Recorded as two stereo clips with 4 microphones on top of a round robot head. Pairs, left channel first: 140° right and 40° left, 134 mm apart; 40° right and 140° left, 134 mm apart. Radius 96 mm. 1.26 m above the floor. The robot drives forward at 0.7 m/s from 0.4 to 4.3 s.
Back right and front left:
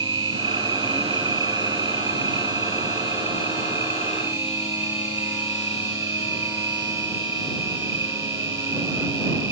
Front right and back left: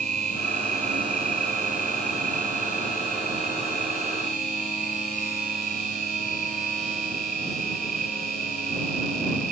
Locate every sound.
0.0 s an insect: 105° left; by 9.5 s 115° left